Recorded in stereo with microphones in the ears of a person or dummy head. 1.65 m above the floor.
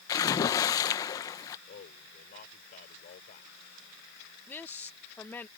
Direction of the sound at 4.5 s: 10° left (ahead or behind).